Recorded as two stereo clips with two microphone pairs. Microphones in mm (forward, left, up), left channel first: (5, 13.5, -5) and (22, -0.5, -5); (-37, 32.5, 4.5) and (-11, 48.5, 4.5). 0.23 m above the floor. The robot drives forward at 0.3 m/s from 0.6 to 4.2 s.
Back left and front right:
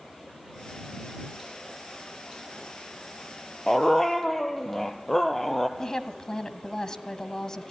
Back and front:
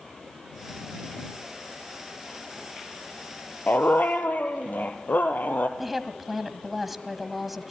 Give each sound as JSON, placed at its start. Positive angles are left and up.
{"t": 3.7, "sound": "a dog barking", "azimuth_deg": -135, "distance_m": 1.4}
{"t": 5.8, "sound": "a woman speaking", "azimuth_deg": 115, "distance_m": 1.5}